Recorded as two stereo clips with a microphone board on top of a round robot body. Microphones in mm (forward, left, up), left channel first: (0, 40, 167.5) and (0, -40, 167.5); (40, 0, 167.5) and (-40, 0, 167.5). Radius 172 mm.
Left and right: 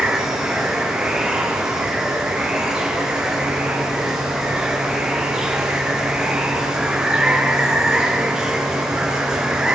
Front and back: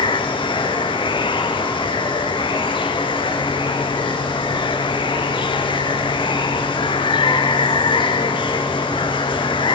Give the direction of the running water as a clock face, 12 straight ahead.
12 o'clock.